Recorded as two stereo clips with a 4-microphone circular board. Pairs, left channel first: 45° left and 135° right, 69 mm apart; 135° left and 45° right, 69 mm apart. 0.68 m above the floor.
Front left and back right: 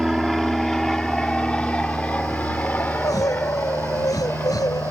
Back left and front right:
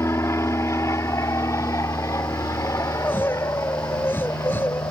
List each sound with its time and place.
0.0 s an aircraft: 135° left; by 4.9 s 100° left
2.8 s crying: 75° left